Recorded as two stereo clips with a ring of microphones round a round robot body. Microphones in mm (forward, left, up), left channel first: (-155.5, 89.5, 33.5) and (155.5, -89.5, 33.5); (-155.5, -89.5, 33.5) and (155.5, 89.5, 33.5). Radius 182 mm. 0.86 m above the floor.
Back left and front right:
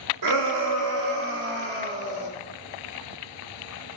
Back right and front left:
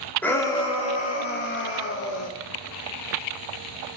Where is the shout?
65° right, 2 m; by 2.3 s 100° right, 3 m.